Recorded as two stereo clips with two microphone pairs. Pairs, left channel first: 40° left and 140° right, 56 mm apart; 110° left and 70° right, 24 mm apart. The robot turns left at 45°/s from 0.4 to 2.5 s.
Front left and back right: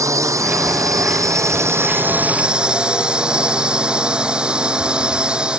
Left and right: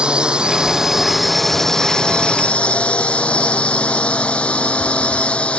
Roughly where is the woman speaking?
No woman speaking in this recording.